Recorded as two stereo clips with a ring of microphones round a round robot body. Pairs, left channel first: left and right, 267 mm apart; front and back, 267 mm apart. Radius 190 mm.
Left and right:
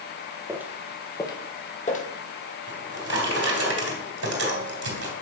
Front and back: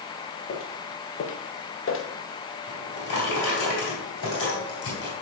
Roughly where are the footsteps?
Ahead.